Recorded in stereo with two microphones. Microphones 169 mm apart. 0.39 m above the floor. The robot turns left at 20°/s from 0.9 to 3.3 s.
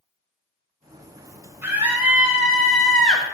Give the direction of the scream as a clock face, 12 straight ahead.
5 o'clock.